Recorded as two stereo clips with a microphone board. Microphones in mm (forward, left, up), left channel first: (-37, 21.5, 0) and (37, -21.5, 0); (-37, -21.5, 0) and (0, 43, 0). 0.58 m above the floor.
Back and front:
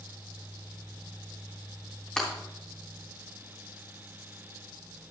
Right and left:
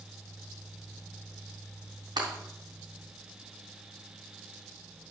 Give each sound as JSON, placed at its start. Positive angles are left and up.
{"t": 2.2, "sound": "breaking glass", "azimuth_deg": 70, "distance_m": 3.0}